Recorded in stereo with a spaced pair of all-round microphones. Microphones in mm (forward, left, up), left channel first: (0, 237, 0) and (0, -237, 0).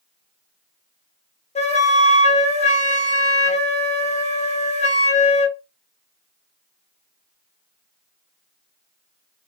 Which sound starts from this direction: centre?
A flute, at 1.6 s.